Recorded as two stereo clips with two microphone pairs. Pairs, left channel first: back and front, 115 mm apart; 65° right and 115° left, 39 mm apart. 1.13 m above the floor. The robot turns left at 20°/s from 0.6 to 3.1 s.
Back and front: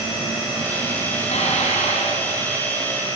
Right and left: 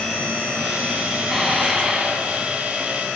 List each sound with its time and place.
1.2 s dishes clattering: 160° right, 6 m; by 3.2 s 165° left, 6 m